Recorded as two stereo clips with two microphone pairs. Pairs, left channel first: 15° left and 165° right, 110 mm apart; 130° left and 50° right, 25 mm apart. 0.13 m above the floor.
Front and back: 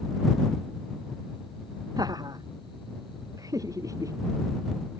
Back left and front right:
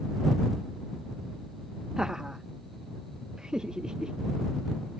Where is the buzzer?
I don't hear a buzzer.